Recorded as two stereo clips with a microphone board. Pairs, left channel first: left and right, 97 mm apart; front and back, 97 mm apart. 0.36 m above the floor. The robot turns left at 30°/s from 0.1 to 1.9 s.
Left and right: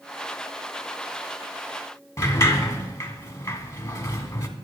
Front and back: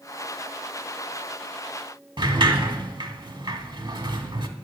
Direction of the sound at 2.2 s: 145° left.